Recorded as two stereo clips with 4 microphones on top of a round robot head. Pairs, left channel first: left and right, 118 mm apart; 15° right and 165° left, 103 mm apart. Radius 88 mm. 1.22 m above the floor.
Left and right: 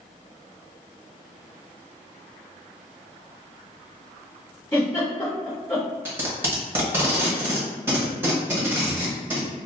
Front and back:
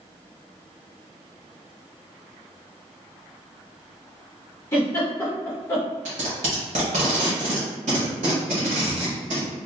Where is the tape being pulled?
160° right, 0.9 m.